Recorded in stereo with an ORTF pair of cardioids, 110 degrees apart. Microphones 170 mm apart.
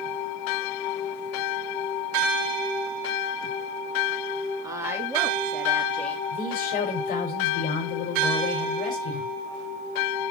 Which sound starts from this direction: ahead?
A woman speaking, at 4.6 s.